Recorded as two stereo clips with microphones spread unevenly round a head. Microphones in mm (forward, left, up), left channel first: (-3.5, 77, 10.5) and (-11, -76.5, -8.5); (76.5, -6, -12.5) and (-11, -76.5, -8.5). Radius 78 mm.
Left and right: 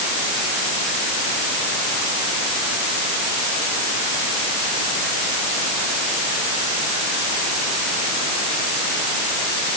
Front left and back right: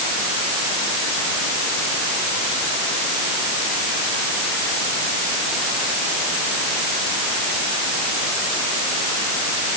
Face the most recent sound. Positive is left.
No sound to turn to.